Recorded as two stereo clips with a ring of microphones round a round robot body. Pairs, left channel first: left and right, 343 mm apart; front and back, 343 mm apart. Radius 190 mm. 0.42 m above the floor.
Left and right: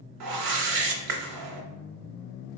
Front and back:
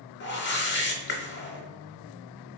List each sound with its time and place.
0.2 s a whoosh: 60° right, 0.8 m